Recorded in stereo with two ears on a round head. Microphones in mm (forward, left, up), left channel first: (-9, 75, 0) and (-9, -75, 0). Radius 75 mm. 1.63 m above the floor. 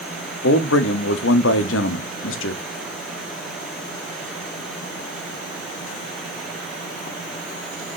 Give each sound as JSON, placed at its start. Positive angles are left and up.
{"t": 0.4, "sound": "a man speaking", "side_deg": 85, "distance_m": 0.7}